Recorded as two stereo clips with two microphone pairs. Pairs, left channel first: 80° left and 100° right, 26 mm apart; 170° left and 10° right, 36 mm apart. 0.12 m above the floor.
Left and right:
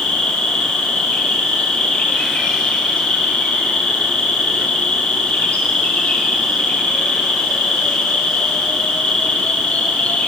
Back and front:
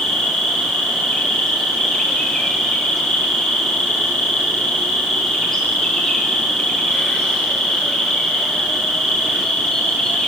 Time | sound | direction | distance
0.0 | an insect | 90° left | 9.5 m